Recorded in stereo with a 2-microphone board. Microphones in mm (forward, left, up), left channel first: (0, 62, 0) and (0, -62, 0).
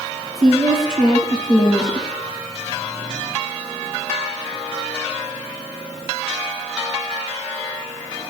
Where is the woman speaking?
45° left (ahead or behind), 4 m.